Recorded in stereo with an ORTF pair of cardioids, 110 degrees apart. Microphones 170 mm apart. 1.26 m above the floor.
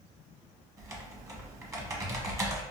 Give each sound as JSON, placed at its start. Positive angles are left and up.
{"t": 0.8, "sound": "typing on a keyboard", "azimuth_deg": -20, "distance_m": 0.8}